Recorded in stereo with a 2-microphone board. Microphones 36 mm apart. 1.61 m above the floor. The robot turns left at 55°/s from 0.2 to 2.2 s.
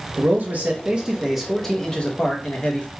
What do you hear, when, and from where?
0.2 s a man speaking: 110° right, 0.8 m; by 2.9 s 140° left, 0.8 m